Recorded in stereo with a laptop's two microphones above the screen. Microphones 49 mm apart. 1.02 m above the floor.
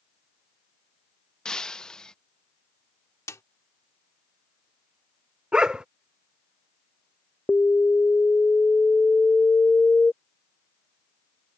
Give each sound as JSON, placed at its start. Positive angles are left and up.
{"t": 1.4, "sound": "breaking glass", "side_deg": 10}
{"t": 3.3, "sound": "a snare drum", "side_deg": 85}
{"t": 5.5, "sound": "a dog barking", "side_deg": -15}
{"t": 7.5, "sound": "an alarm", "side_deg": 30}